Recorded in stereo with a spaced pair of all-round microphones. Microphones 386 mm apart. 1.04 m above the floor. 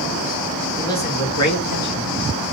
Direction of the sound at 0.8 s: 5° left (ahead or behind).